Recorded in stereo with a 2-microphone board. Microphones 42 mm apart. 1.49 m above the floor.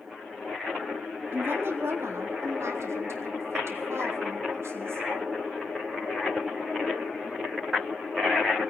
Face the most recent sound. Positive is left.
turn(degrees=-65)  # may be behind; listen again after turning